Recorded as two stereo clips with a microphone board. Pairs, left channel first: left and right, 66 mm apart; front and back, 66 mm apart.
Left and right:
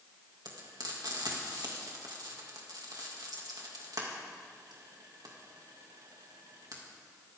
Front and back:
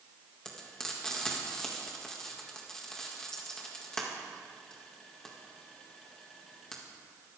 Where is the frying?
80° right, 2.5 m.